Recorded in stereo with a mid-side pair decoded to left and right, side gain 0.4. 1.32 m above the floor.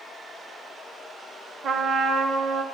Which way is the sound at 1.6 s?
65° right.